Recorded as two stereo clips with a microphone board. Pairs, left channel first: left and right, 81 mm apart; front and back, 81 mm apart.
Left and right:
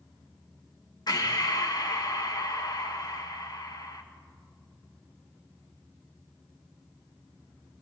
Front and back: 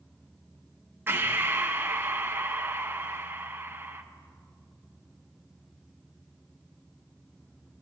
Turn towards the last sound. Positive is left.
turn(degrees=115)